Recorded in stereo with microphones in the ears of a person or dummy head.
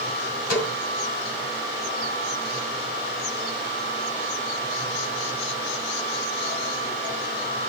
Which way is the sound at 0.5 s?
55° left (ahead or behind).